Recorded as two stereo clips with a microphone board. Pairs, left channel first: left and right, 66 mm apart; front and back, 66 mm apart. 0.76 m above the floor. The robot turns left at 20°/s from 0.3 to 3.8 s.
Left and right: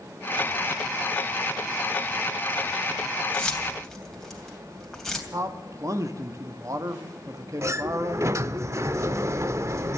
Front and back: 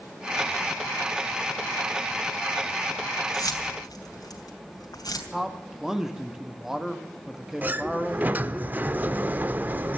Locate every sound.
3.3 s keys jangling: 15° left, 3 m; by 5.2 s 5° left, 3 m
5.3 s a man speaking: 100° right, 1.1 m
7.6 s a sliding door: 120° right, 0.5 m